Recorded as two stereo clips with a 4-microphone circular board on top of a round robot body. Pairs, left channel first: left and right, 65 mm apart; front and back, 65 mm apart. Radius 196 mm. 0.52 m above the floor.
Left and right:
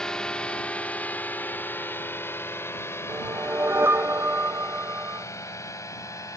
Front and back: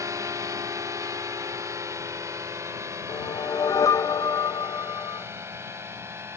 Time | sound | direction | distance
0.0 | a drone | 170° left | ?
3.1 | a whoosh | 30° right | ?